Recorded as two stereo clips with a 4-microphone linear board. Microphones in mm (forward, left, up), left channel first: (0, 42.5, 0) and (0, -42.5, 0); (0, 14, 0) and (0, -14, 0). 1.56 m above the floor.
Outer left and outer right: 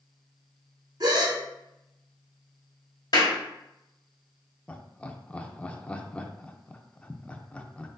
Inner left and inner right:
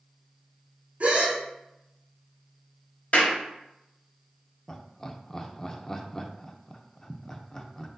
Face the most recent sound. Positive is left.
turn(degrees=15)  # may be behind; listen again after turning